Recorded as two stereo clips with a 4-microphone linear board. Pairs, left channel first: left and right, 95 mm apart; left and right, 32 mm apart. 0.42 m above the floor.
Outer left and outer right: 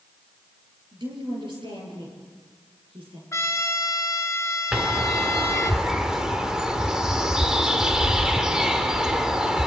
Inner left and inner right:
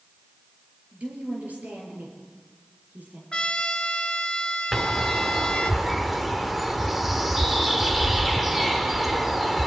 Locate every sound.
0.9 s a woman speaking: 55° right (ahead or behind), 7.5 m; by 3.2 s 60° right (ahead or behind), 9.5 m
3.3 s a trumpet: 30° left (ahead or behind), 1.2 m
4.7 s a bird: 5° right (ahead or behind), 1.4 m